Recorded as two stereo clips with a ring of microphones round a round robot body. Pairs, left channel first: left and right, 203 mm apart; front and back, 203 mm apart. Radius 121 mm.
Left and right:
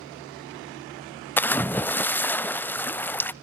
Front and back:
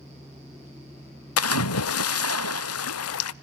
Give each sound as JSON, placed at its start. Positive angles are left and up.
{"t": 1.4, "sound": "a splash", "azimuth_deg": 10, "distance_m": 0.5}